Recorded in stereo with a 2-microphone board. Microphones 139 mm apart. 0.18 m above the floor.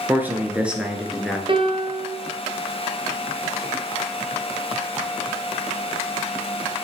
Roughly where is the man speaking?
Centre.